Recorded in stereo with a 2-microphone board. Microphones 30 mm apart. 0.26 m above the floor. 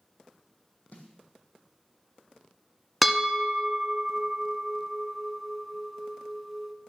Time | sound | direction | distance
0.9 | a snare drum | 65° left (ahead or behind) | 1.7 m
3.0 | a bell | centre (ahead or behind) | 0.8 m